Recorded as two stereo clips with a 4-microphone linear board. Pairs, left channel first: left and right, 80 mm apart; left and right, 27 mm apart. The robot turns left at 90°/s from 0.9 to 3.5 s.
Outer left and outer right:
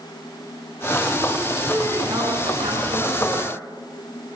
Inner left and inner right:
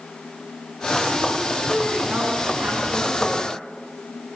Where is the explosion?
No explosion in this recording.